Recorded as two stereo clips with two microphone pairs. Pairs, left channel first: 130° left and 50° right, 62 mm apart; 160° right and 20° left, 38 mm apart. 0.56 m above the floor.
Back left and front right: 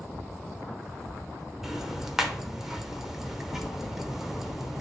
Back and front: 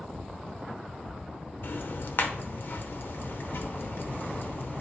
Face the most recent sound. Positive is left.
turn(degrees=-135)